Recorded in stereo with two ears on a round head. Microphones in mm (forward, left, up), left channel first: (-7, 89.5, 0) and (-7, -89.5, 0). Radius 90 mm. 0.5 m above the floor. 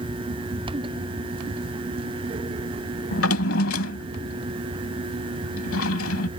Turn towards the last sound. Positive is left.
turn(degrees=75)  # may be behind; listen again after turning